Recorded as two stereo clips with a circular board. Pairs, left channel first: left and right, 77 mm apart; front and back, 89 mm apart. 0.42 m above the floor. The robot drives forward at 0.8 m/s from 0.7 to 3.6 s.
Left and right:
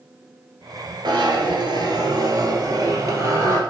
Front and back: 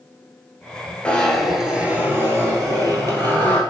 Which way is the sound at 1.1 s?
75° right.